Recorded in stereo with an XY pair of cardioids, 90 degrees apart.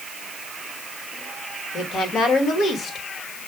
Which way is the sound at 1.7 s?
65° left.